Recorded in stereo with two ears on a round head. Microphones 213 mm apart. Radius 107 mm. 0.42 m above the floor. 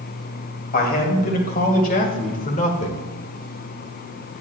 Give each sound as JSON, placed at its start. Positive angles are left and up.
{"t": 0.7, "sound": "a man speaking", "side_deg": 40, "distance_m": 2.5}